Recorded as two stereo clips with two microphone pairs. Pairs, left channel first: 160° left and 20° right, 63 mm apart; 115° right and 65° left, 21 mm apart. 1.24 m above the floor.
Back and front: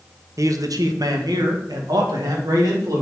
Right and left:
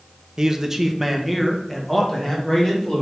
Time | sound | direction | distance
0.4 | a man speaking | 5° left | 0.7 m